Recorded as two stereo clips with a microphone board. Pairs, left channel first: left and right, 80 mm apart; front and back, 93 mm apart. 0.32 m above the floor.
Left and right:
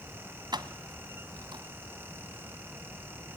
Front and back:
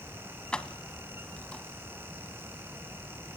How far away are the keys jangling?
About 1.3 m.